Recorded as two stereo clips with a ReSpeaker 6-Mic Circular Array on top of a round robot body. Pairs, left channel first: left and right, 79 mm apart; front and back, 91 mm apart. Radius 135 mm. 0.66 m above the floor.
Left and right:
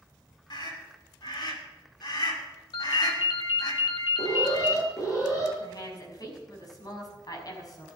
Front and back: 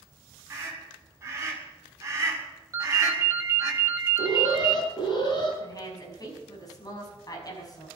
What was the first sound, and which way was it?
A scream, 115° left.